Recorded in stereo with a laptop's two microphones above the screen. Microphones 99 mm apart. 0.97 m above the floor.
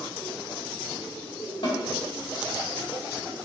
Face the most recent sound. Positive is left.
turn(degrees=80)